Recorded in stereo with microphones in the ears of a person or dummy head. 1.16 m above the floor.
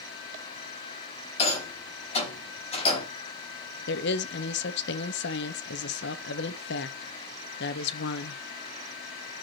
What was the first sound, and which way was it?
A rattle, 30° left (ahead or behind).